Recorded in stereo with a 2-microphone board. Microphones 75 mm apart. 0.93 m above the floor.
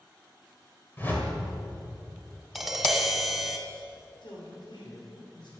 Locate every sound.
1.0 s a whoosh: 25° left (ahead or behind), 2.5 m
2.5 s tapping: 5° right (ahead or behind), 1.5 m
4.2 s a man speaking: 75° left (ahead or behind), 4 m